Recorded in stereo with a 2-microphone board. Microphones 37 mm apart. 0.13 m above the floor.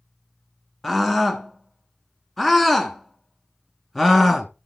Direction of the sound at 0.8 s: 5° left (ahead or behind).